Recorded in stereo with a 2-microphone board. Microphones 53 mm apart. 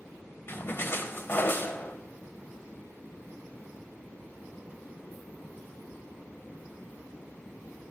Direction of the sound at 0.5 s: 45° left (ahead or behind).